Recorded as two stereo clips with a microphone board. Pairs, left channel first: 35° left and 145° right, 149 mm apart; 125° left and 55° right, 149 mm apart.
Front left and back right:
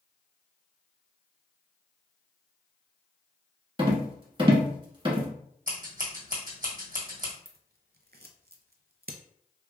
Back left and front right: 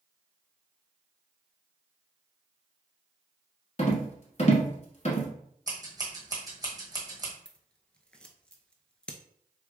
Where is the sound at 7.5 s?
150° right, 0.5 m.